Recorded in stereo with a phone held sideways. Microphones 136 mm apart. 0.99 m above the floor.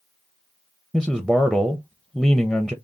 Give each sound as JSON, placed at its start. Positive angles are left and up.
{"t": 0.9, "sound": "a man speaking", "side_deg": 0, "distance_m": 0.6}